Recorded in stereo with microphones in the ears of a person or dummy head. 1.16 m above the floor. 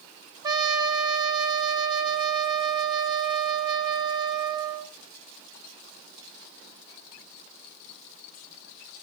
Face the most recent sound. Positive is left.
turn(degrees=-25)  # may be behind; listen again after turning